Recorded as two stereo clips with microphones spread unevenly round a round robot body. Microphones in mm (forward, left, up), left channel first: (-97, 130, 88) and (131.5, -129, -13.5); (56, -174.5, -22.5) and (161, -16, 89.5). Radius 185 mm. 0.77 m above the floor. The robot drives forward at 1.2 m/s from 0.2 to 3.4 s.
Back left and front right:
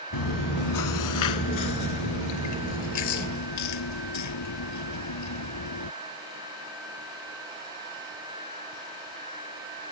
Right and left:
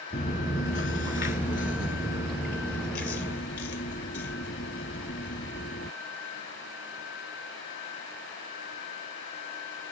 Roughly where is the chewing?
Behind.